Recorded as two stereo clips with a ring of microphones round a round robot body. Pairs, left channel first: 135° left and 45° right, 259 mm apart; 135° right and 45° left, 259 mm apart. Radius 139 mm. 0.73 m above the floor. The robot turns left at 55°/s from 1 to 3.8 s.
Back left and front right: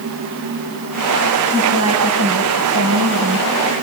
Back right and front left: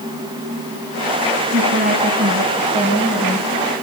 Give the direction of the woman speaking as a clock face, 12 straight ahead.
12 o'clock.